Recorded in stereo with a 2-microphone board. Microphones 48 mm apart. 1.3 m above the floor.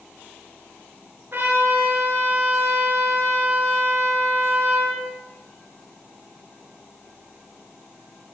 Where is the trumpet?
50° right (ahead or behind), 5.5 m.